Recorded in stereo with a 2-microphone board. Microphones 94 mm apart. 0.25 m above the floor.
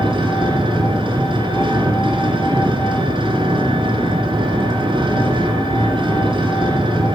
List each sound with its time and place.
0.0 s an engine running: 70° right (ahead or behind), 2.5 m